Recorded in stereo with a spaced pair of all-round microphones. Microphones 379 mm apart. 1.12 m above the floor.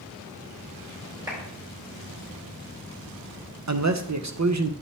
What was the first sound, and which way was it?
A clap, 10° right (ahead or behind).